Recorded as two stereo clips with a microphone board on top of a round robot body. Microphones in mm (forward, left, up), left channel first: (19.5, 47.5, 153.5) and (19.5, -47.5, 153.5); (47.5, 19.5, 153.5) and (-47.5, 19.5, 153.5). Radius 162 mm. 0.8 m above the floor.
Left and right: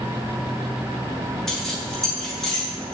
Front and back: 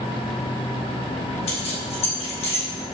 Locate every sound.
1.5 s keys jangling: 5° left, 3 m